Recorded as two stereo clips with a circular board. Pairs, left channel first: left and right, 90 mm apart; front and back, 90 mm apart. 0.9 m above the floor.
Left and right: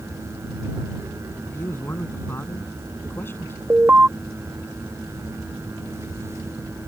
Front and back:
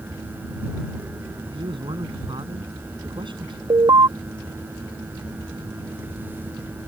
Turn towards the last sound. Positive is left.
turn(degrees=-155)